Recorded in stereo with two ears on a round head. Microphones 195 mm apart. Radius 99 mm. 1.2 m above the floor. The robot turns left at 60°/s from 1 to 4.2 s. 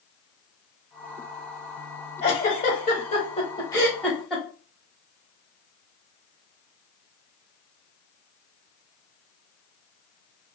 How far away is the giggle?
About 1.1 m.